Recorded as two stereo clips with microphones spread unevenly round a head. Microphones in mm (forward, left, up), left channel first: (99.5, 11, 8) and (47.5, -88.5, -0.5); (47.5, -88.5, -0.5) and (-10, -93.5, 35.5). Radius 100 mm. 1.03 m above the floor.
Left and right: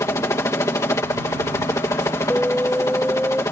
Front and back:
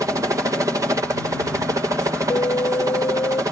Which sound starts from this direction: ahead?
An alarm, at 2.3 s.